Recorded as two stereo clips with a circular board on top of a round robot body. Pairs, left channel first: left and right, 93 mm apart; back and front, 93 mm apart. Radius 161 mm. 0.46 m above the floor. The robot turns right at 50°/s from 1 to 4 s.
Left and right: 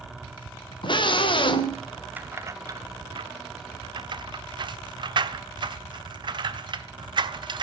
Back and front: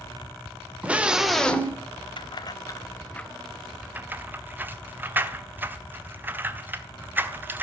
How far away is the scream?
About 2.5 m.